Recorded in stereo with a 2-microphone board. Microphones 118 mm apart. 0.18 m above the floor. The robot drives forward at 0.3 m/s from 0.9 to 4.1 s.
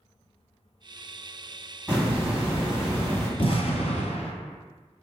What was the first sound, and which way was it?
A hiss, 10° right (ahead or behind).